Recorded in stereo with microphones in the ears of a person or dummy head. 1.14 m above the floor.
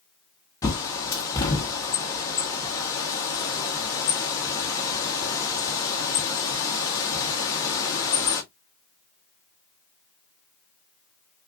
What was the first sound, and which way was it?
A bird, 20° left (ahead or behind).